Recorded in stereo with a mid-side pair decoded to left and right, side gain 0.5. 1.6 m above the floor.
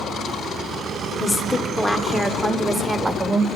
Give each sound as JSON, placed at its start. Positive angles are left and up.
{"t": 1.2, "sound": "a woman speaking", "azimuth_deg": 25, "distance_m": 1.1}